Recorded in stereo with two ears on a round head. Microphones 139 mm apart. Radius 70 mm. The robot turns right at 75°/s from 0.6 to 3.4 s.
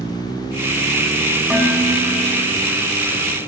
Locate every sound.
1.5 s dishes clattering: 175° right, 2.0 m; by 2.3 s 110° right, 2.0 m